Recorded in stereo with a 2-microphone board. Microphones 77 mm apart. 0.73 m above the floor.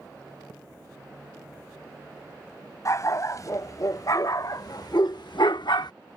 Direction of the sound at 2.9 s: 45° left (ahead or behind).